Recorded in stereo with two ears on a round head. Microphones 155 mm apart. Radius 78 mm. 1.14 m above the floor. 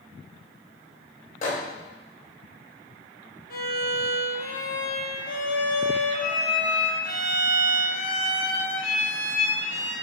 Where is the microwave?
45° left (ahead or behind), 0.7 m.